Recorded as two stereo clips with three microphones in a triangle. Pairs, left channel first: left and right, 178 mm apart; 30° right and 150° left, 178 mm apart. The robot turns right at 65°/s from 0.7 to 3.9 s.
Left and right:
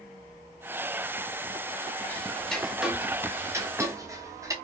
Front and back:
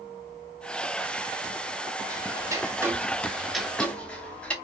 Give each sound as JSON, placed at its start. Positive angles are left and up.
{"t": 2.1, "sound": "ticking", "azimuth_deg": 145, "distance_m": 0.6}